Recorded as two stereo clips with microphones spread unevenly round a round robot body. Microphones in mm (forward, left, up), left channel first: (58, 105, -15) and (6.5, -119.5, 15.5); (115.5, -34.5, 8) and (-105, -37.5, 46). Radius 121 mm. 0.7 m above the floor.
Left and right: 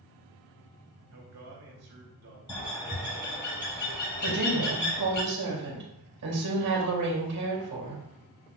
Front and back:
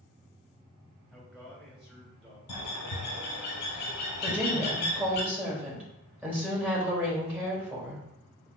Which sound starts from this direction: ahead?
A bird, at 2.5 s.